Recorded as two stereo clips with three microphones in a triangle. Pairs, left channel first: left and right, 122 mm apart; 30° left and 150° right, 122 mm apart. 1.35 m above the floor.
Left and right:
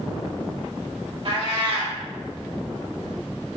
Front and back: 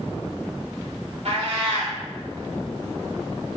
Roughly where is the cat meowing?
Behind right.